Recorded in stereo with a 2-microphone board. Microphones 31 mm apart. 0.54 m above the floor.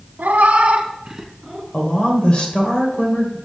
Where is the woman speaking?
35° left (ahead or behind), 2 m.